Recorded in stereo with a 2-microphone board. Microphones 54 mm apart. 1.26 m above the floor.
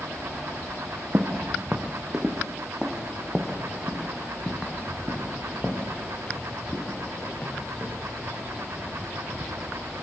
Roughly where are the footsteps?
Right.